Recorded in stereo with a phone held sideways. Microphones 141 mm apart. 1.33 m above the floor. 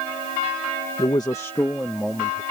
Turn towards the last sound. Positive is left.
turn(degrees=10)  # may be behind; listen again after turning